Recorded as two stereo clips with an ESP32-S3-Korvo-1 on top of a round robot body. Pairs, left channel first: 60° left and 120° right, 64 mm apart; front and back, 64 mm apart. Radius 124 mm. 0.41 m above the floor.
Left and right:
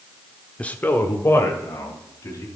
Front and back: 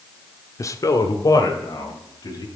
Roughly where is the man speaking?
Ahead.